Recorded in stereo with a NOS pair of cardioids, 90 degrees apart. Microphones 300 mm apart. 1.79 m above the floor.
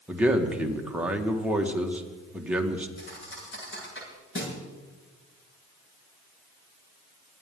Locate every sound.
0.1 s a man speaking: 5° right, 2.0 m
3.0 s a thud: 40° left, 8 m